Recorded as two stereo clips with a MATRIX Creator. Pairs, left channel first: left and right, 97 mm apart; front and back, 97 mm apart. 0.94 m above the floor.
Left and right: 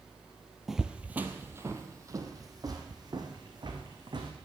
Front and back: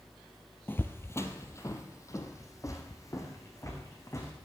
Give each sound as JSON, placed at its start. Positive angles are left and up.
{"t": 0.7, "sound": "footsteps", "azimuth_deg": -5, "distance_m": 1.0}